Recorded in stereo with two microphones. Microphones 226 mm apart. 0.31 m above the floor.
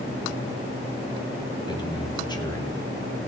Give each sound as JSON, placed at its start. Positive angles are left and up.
{"t": 1.7, "sound": "a man speaking", "side_deg": 20, "distance_m": 2.0}